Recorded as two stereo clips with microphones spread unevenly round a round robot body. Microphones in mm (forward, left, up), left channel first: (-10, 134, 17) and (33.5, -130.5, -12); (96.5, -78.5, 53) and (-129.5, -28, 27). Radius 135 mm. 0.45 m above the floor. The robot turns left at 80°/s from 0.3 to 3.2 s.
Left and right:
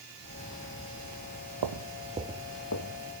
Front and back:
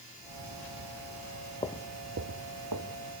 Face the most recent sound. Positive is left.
turn(degrees=90)